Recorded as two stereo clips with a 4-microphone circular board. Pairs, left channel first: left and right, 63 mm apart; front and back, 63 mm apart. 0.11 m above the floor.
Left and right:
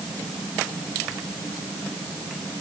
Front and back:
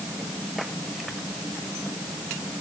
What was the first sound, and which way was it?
Only background noise.